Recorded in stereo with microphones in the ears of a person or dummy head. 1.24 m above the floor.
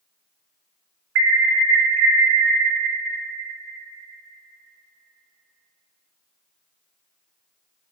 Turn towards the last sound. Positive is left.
turn(degrees=-70)  # may be behind; listen again after turning